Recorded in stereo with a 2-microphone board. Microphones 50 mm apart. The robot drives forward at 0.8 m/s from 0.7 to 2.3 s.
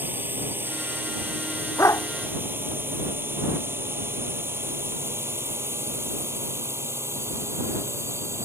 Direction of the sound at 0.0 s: 40° right (ahead or behind).